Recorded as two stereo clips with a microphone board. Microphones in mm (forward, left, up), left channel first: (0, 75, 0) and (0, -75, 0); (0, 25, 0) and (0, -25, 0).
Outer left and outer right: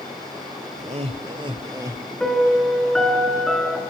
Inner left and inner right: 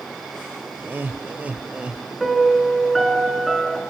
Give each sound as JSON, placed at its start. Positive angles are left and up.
{"t": 0.8, "sound": "laughter", "side_deg": -50, "distance_m": 1.2}
{"t": 2.2, "sound": "a piano", "side_deg": 5, "distance_m": 5.0}